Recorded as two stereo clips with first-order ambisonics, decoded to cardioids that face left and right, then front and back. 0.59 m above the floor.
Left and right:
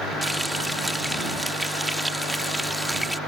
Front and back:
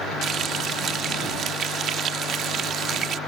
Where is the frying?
175° right.